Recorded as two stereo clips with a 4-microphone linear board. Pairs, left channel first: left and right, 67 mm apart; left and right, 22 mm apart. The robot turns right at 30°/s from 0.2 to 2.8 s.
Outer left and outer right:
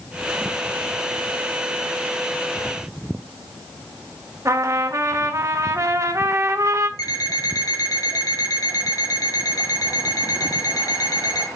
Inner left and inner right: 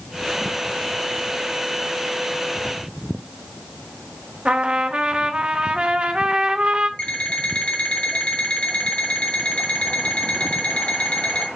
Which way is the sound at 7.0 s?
70° left (ahead or behind).